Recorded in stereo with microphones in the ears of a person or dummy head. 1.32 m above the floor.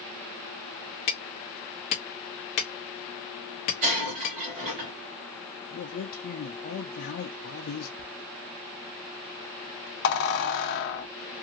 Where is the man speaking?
55° left (ahead or behind), 0.7 m.